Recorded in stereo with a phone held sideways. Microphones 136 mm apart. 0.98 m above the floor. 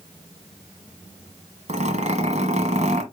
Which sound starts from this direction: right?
A zipper, at 1.7 s.